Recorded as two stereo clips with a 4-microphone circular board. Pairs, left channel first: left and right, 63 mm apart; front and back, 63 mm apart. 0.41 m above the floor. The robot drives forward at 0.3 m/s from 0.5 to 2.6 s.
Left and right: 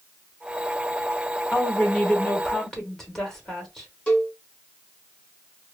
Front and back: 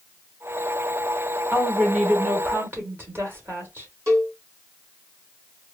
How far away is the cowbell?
About 1.1 m.